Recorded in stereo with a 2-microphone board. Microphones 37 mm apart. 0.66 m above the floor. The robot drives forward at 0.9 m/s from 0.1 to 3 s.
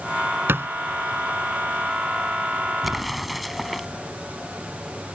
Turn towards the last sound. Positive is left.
turn(degrees=0)  # may be behind; listen again after turning